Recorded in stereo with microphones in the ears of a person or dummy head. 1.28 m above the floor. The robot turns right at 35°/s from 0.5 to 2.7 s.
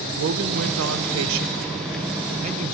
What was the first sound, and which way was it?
A man speaking, 110° right.